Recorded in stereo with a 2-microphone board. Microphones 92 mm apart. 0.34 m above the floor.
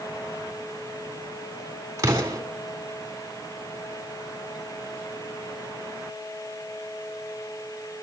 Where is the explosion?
35° right (ahead or behind), 3 m.